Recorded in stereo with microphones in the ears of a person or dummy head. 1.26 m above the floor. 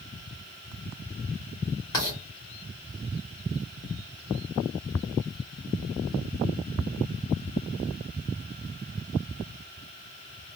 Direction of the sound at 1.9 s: 20° left (ahead or behind).